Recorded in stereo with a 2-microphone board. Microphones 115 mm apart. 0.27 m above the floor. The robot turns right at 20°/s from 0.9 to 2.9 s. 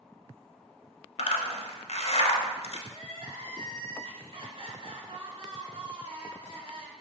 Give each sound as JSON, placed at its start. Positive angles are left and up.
{"t": 1.2, "sound": "a zipper", "side_deg": 90, "distance_m": 0.7}
{"t": 2.9, "sound": "crying", "side_deg": -55, "distance_m": 0.6}